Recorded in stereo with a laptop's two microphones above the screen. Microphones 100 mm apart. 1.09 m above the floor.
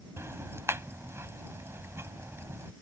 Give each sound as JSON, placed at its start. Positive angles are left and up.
{"t": 0.2, "sound": "ticking", "side_deg": -30}